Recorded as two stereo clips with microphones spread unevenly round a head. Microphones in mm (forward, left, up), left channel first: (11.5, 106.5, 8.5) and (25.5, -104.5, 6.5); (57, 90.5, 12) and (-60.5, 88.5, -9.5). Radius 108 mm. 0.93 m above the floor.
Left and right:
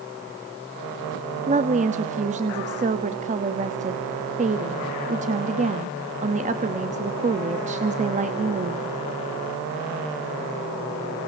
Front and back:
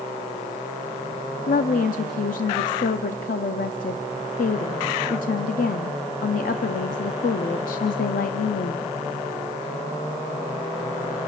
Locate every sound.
1.5 s a woman speaking: 30° right, 1.2 m